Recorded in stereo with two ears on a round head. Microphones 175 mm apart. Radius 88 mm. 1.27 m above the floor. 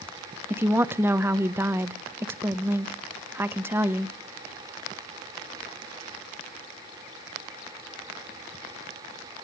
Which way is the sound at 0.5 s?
10° right (ahead or behind).